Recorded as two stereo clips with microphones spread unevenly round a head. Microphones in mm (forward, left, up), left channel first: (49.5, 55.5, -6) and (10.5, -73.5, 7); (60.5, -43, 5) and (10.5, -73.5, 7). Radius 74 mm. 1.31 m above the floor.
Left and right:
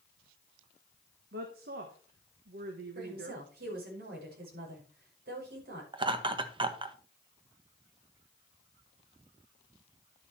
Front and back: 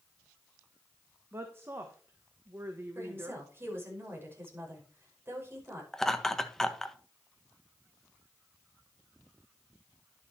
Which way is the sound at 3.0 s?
100° right.